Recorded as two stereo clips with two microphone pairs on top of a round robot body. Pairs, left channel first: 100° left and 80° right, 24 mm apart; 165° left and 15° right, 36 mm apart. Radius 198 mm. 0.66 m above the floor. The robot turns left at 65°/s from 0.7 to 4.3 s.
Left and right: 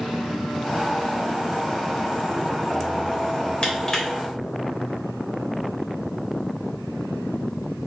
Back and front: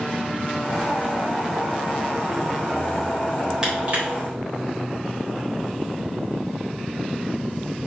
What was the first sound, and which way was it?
Crushing, 55° left.